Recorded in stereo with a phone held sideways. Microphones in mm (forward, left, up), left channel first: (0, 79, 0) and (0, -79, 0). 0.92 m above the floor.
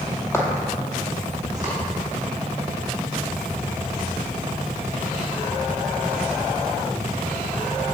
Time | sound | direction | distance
0.3 | footsteps | 15° left (ahead or behind) | 1.2 m